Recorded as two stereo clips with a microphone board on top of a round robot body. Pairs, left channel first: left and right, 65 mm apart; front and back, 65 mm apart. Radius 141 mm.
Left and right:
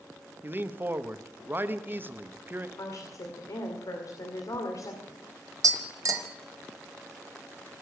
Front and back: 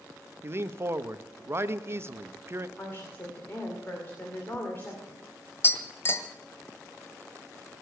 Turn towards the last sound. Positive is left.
turn(degrees=-55)